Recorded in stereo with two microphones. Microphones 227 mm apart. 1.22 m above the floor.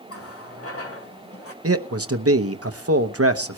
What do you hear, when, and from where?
0.1 s a running tap: 70° left (ahead or behind), 2.0 m
1.6 s a man speaking: 75° right (ahead or behind), 1.0 m